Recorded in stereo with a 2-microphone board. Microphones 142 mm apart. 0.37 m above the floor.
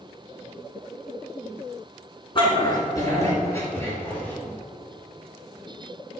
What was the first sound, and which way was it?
A dog barking, 35° left (ahead or behind).